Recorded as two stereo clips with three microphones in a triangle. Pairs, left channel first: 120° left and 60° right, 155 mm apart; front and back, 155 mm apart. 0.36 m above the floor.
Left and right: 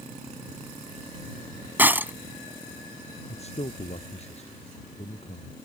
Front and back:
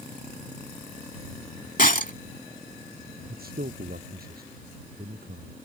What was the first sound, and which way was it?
Breaking glass, 20° left.